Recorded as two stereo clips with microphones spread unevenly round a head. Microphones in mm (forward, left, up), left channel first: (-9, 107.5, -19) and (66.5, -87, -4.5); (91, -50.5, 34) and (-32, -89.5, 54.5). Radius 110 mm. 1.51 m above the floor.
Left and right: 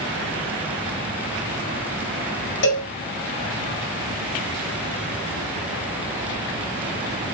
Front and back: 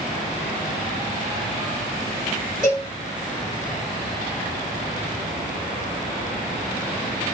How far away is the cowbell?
About 0.8 m.